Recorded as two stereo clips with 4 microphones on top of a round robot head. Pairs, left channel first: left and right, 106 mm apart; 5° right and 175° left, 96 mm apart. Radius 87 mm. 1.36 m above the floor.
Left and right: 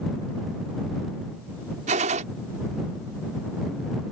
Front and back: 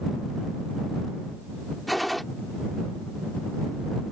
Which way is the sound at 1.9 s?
95° right.